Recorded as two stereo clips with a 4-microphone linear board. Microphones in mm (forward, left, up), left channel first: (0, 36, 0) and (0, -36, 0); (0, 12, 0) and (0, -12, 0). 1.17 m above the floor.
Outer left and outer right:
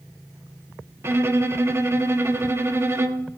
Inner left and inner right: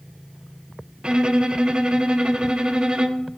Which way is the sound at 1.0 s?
35° right (ahead or behind).